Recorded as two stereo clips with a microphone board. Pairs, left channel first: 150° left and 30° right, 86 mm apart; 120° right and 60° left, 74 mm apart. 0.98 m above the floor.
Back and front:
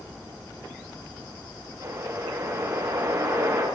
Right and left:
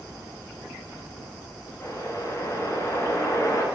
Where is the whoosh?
75° right, 6.5 m.